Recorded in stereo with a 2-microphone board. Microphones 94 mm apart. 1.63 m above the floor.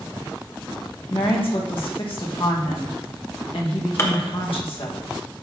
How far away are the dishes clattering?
About 1.0 m.